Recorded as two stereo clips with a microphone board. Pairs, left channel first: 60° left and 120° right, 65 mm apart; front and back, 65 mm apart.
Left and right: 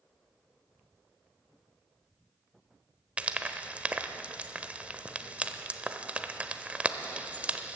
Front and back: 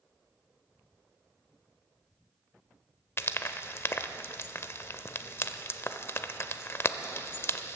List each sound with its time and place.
3.2 s frying: 50° right, 0.7 m